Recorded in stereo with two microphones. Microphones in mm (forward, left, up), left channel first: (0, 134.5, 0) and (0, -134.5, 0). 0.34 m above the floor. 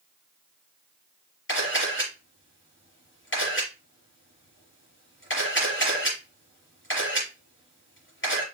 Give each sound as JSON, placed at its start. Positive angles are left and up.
{"t": 1.5, "sound": "a camera shutter", "side_deg": 45, "distance_m": 5.5}